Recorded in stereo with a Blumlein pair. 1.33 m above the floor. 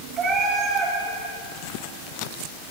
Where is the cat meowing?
25° right, 6 m.